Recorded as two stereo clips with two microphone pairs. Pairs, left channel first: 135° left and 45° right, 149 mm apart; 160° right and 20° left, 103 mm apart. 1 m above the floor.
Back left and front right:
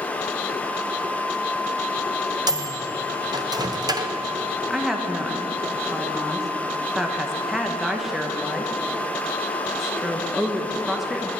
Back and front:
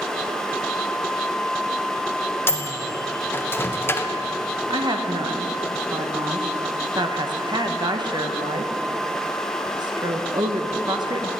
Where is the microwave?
100° right, 0.5 m.